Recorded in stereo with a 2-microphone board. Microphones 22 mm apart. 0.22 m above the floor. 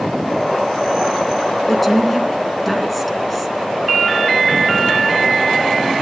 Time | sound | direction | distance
1.7 | a woman speaking | 5° left (ahead or behind) | 2.5 m